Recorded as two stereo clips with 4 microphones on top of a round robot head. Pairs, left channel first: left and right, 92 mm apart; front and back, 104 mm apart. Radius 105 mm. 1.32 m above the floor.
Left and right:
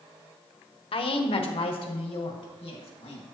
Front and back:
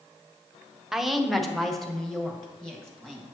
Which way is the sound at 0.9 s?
90° left.